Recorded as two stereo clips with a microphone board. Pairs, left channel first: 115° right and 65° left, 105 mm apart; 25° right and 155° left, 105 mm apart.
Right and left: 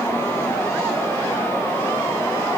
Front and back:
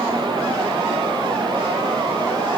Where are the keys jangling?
No keys jangling in this recording.